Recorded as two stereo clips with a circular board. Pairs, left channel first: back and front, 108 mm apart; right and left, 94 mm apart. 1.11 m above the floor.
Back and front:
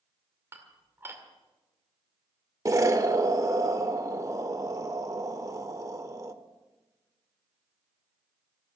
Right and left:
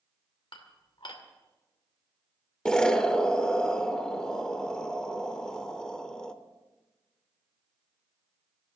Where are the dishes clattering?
70° right, 2 m.